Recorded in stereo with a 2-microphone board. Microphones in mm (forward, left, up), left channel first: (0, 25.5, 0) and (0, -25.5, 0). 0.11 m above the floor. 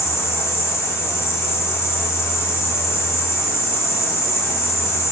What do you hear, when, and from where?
0.0 s an insect: 65° left (ahead or behind), 0.9 m